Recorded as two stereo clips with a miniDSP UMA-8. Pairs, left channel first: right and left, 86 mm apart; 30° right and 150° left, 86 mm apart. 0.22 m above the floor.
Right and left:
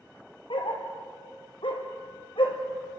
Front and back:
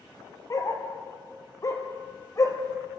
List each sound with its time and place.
0.5 s a dog barking: 80° right, 1.9 m